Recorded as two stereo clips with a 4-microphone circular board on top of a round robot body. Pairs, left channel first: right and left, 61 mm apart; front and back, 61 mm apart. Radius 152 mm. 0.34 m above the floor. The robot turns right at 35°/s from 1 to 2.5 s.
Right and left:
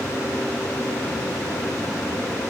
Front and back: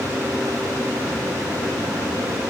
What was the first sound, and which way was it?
Only background noise.